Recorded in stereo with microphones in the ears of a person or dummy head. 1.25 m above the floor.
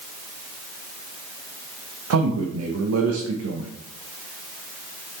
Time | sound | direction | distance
2.1 | a man speaking | 80° right | 1.0 m